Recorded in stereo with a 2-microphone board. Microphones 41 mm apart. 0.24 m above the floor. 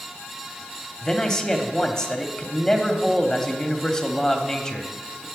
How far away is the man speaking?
About 1.1 m.